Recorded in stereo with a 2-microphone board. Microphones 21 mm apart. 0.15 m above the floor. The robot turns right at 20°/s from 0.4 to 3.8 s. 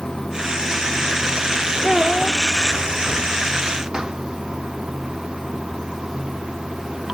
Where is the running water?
150° left; by 7.1 s 140° right.